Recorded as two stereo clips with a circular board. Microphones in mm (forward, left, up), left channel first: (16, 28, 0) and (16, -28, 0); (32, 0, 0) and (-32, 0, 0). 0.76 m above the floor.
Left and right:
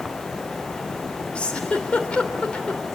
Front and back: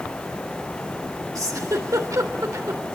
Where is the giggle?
160° left, 3 m.